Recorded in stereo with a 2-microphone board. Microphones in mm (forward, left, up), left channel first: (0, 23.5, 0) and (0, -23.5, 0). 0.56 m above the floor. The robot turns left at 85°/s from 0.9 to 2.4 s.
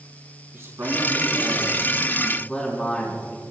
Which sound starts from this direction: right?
A man speaking, at 0.5 s.